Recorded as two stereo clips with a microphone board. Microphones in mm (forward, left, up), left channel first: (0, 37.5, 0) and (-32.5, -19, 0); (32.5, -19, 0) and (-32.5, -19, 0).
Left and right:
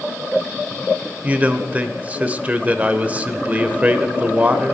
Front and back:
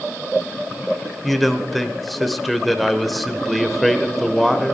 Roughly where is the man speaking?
Right.